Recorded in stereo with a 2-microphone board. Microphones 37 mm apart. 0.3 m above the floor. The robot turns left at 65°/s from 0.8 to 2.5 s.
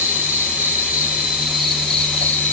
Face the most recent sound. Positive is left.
turn(degrees=130)